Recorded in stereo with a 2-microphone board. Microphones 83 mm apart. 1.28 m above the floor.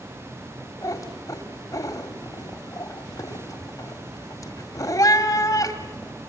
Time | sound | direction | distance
0.8 | a cat meowing | 45° left (ahead or behind) | 1.9 m